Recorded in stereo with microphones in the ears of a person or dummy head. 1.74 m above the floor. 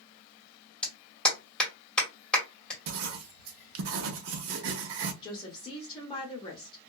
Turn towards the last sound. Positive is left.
turn(degrees=30)  # may be behind; listen again after turning